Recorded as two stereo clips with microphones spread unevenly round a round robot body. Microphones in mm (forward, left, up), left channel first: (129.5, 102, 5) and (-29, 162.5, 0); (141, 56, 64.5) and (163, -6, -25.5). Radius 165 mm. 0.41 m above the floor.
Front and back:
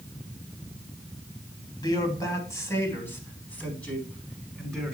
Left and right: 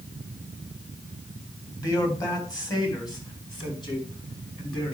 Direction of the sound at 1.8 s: 45° left.